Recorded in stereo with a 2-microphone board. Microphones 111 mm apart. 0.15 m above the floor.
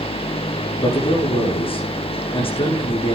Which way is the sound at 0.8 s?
55° left (ahead or behind).